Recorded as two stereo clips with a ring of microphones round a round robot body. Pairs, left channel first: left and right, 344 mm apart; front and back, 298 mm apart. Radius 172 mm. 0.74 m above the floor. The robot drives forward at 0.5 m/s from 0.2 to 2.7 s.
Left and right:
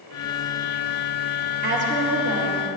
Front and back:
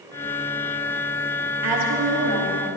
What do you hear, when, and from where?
1.6 s a woman speaking: 155° right, 1.8 m; by 2.6 s 160° right, 2.5 m